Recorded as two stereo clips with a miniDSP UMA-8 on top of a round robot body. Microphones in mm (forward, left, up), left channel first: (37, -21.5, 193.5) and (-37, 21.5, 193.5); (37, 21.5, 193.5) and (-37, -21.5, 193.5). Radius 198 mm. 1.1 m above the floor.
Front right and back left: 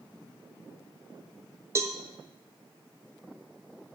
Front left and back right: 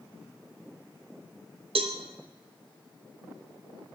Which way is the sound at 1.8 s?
150° right.